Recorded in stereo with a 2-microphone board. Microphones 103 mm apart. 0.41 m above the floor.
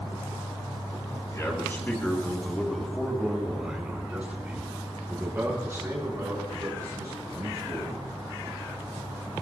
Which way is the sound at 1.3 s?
30° left (ahead or behind).